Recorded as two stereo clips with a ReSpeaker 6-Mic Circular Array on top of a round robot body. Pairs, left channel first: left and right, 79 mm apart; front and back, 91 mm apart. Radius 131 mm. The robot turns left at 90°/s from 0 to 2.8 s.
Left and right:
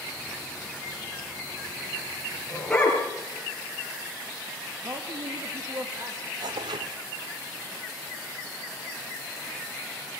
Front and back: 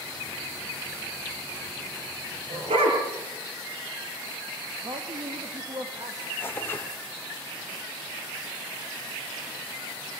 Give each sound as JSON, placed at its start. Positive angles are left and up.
{"t": 2.5, "sound": "a dog barking", "azimuth_deg": -165, "distance_m": 6.0}
{"t": 4.8, "sound": "a man speaking", "azimuth_deg": -140, "distance_m": 2.0}
{"t": 6.4, "sound": "tearing paper", "azimuth_deg": -70, "distance_m": 1.0}